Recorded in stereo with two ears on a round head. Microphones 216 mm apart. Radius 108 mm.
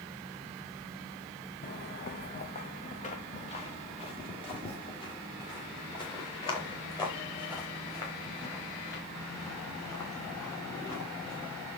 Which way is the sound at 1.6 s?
40° left (ahead or behind).